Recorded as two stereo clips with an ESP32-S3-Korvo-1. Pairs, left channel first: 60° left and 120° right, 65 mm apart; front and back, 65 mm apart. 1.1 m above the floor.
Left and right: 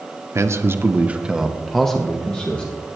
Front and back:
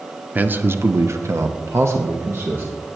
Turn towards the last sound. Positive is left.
turn(degrees=130)